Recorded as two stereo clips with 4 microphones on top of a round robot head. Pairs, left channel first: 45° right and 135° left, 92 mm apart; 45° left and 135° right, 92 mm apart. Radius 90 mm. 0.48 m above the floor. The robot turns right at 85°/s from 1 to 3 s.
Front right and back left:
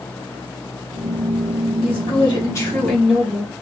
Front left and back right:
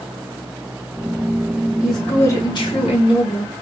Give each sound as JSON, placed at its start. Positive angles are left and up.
{"t": 1.8, "sound": "a woman speaking", "azimuth_deg": -50, "distance_m": 2.5}